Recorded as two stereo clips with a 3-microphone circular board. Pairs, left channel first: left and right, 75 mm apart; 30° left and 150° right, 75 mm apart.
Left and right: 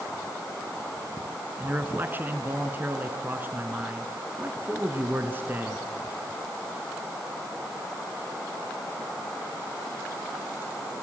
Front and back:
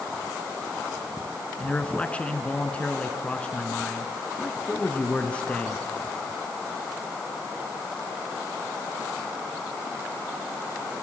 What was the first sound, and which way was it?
A man speaking, 35° right.